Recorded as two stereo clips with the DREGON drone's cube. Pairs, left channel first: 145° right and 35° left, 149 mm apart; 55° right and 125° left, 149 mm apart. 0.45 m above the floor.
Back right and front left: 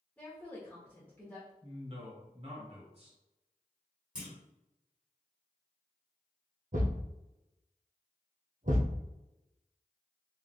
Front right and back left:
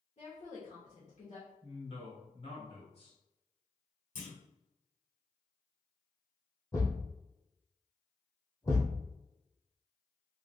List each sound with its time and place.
0.2 s a woman speaking: 65° right, 1.1 m
1.6 s a man speaking: 10° right, 1.9 m
4.2 s a clunk: 50° right, 1.6 m
6.7 s a thud: 15° left, 1.4 m